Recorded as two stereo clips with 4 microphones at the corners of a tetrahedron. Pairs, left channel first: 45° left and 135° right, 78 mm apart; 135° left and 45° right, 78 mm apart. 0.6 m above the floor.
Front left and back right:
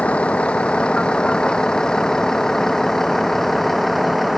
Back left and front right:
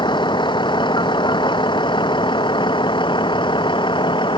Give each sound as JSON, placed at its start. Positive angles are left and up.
{"t": 0.0, "sound": "a vehicle", "azimuth_deg": 120}